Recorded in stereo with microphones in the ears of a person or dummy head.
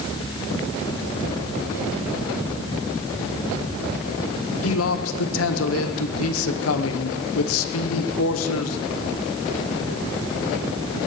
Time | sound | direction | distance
4.6 | a man speaking | 80° left | 1.3 m